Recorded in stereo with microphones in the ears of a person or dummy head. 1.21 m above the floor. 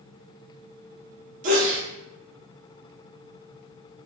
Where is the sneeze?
40° right (ahead or behind), 0.6 m.